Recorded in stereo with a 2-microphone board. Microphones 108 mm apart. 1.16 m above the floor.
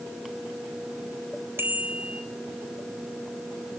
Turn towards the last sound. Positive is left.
turn(degrees=-20)  # may be behind; listen again after turning